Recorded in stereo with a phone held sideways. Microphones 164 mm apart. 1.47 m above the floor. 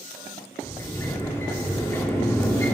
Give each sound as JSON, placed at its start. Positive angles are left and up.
{"t": 0.6, "sound": "a sliding door", "side_deg": 15, "distance_m": 1.4}